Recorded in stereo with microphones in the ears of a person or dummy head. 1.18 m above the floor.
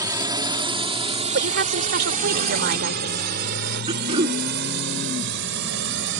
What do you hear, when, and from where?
0.0 s a drone: 20° right (ahead or behind); by 6.2 s 70° right (ahead or behind)
1.3 s a woman speaking: 60° right (ahead or behind)
3.9 s throat clearing: 30° right (ahead or behind)